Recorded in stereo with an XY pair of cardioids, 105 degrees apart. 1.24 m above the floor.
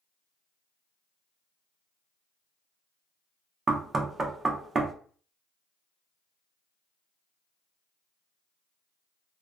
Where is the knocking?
35° right, 0.7 m.